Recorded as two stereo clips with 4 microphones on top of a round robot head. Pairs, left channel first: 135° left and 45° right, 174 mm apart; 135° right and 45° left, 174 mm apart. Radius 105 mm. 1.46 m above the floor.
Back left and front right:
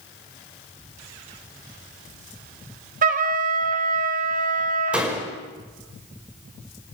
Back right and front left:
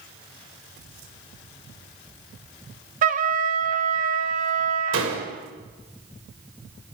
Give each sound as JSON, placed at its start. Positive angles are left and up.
{"t": 3.0, "sound": "a trumpet", "azimuth_deg": 0, "distance_m": 1.4}
{"t": 4.9, "sound": "a door slam", "azimuth_deg": 40, "distance_m": 5.5}